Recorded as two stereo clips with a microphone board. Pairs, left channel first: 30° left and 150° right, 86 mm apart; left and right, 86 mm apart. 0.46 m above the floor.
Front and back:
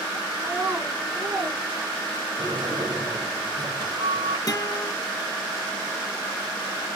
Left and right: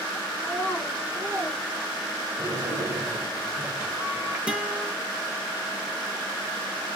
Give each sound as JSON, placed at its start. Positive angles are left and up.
{"t": 0.4, "sound": "a child speaking", "azimuth_deg": 150, "distance_m": 1.6}
{"t": 2.4, "sound": "a sliding door", "azimuth_deg": -155, "distance_m": 2.5}
{"t": 4.5, "sound": "a guitar", "azimuth_deg": -15, "distance_m": 0.9}